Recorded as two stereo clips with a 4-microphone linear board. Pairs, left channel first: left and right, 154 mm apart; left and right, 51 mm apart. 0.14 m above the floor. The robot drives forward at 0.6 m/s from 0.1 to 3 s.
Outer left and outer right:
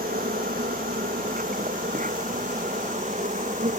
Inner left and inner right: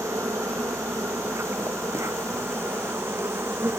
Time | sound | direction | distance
0.0 | an insect | 70° right (ahead or behind) | ?